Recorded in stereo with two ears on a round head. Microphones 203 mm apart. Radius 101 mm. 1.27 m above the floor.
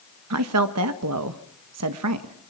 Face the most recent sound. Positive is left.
turn(degrees=-80)